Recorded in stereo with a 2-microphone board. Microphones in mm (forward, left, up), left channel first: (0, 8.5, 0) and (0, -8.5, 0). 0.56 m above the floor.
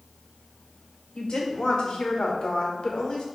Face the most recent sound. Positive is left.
turn(degrees=50)  # may be behind; listen again after turning